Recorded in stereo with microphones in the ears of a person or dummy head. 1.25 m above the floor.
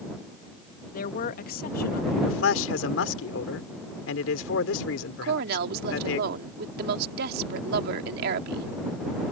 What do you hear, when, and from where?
0.9 s a woman speaking: 50° left (ahead or behind)
2.2 s a man speaking: 85° left
5.2 s a woman speaking: 60° right (ahead or behind)